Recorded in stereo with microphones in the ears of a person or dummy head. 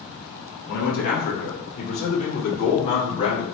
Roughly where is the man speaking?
Left.